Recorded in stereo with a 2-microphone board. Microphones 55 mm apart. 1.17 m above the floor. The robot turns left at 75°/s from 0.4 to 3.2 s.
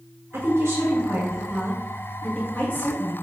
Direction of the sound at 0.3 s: 60° right.